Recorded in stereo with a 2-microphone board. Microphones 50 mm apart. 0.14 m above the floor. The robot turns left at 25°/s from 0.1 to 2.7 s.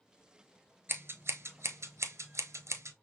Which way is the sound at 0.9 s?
45° right (ahead or behind).